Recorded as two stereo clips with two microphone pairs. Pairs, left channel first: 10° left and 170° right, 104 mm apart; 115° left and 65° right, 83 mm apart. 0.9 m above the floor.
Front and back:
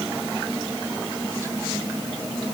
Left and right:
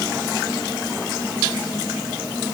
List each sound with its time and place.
Only background noise.